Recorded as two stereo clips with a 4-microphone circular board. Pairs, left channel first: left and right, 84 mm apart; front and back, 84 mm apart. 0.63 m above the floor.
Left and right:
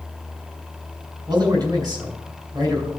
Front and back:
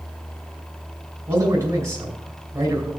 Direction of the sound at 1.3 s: 130° right.